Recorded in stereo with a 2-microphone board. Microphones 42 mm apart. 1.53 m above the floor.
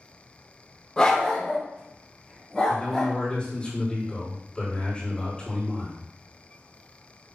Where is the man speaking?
20° left (ahead or behind), 3.5 m.